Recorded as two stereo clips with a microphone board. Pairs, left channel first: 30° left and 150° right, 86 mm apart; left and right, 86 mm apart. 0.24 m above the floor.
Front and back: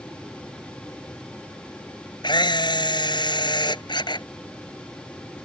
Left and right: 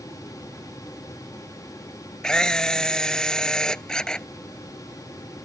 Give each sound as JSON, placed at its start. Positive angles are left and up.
{"t": 2.2, "sound": "a camera shutter", "azimuth_deg": 10}